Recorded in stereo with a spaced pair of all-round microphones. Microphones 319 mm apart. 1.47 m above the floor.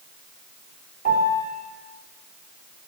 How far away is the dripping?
I don't hear dripping.